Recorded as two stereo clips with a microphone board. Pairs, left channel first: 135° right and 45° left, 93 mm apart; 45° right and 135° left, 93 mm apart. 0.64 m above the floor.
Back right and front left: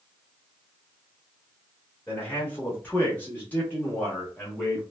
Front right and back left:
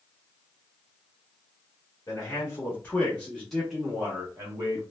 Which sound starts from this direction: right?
A man speaking, at 2.1 s.